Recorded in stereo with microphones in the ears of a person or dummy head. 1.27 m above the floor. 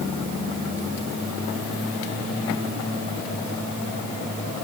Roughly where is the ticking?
I don't hear ticking.